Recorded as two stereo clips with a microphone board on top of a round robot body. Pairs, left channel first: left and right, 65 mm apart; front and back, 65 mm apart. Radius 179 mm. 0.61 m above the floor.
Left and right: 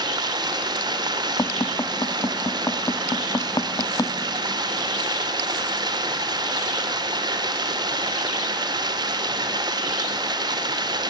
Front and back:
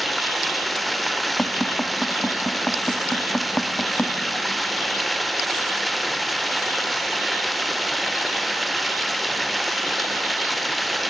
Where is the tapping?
70° left, 1.4 m.